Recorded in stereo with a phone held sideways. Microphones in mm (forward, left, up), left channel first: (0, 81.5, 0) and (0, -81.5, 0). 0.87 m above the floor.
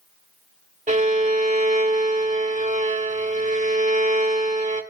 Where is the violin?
50° right (ahead or behind), 1.7 m.